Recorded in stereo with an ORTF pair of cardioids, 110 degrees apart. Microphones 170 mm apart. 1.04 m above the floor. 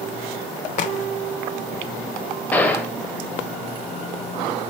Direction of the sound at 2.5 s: 10° left.